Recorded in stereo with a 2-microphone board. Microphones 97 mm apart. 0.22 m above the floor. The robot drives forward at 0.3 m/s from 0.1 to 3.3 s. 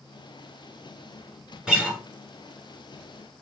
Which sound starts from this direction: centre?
A guitar, at 1.7 s.